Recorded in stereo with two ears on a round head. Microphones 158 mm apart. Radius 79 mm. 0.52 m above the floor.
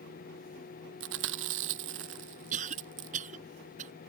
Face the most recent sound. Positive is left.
turn(degrees=-45)  # may be behind; listen again after turning